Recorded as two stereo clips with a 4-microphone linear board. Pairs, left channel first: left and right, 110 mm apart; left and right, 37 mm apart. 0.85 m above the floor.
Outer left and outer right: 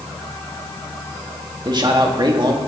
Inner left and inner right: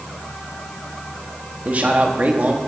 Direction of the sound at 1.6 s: 45° right (ahead or behind).